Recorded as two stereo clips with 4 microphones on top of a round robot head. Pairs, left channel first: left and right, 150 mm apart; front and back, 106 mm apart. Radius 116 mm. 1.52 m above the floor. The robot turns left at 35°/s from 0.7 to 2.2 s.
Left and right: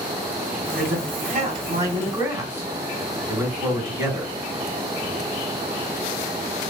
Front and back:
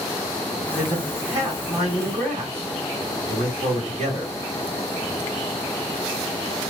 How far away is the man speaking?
About 2.5 m.